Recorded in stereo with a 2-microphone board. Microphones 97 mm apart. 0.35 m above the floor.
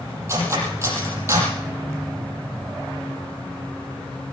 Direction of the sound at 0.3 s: 30° right (ahead or behind).